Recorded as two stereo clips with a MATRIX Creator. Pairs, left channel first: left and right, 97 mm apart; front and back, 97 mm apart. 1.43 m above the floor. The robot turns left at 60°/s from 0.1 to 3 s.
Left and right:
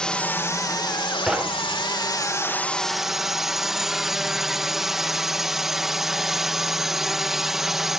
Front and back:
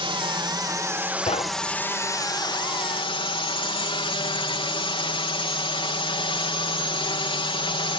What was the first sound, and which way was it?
A drone, 170° left.